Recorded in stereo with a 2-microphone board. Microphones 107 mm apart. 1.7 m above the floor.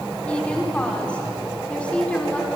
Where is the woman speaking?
10° left (ahead or behind), 5 m.